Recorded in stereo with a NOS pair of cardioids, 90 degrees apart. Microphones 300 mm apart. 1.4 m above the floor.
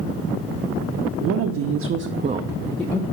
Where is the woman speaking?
65° right, 0.9 m; by 3.0 s 15° left, 0.7 m.